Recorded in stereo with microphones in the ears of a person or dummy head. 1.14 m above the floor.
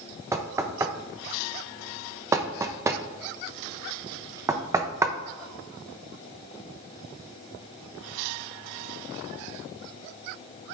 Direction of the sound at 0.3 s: 15° right (ahead or behind).